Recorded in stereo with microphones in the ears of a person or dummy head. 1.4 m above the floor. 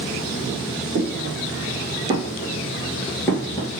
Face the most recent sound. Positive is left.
turn(degrees=30)  # may be behind; listen again after turning